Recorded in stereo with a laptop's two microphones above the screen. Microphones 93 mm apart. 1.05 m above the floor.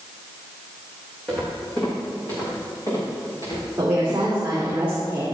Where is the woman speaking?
20° right (ahead or behind), 2.5 m.